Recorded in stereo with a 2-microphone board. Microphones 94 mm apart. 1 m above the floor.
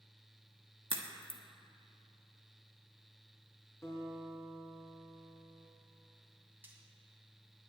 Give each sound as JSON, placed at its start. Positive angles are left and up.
{"t": 0.9, "sound": "a crack", "side_deg": -65, "distance_m": 1.3}
{"t": 3.8, "sound": "a guitar", "side_deg": 35, "distance_m": 3.5}
{"t": 6.6, "sound": "frying", "side_deg": -20, "distance_m": 2.5}